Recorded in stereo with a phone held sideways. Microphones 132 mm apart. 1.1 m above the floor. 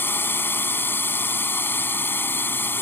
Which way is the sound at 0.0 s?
15° left (ahead or behind).